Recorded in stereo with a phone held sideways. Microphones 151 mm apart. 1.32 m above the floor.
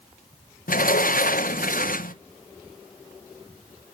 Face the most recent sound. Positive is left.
turn(degrees=65)  # may be behind; listen again after turning